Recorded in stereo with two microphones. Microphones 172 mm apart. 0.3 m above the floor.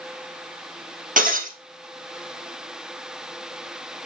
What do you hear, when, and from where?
1.2 s breaking glass: 55° right (ahead or behind), 2.5 m